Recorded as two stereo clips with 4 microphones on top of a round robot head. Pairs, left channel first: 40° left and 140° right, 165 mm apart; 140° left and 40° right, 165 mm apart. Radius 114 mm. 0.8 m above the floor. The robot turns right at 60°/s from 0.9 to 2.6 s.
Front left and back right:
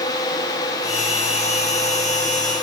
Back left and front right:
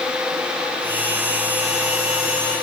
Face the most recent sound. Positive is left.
No sound to turn to.